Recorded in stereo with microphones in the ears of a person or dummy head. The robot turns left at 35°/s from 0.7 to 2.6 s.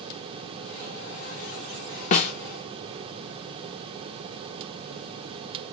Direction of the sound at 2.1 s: 45° left (ahead or behind).